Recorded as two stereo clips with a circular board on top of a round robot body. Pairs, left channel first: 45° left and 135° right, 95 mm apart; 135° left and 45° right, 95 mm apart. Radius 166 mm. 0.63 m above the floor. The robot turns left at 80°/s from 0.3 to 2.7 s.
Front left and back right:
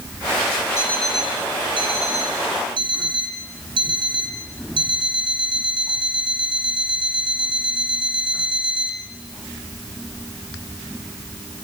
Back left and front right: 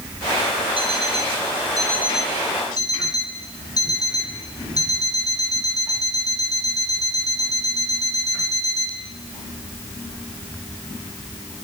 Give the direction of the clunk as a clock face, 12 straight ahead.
No clunk in this recording.